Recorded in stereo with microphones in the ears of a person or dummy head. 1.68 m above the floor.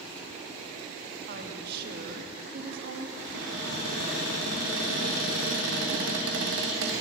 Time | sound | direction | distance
1.3 | a woman speaking | 60° right (ahead or behind) | 1.1 m
3.2 | a cupboard door | 65° right (ahead or behind) | 1.8 m